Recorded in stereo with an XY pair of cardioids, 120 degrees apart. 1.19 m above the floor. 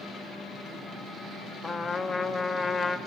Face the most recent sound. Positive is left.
turn(degrees=30)